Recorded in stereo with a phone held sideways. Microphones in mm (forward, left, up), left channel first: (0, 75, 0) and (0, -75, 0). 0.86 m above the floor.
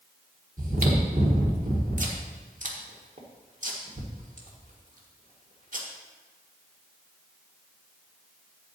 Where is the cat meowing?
I don't hear a cat meowing.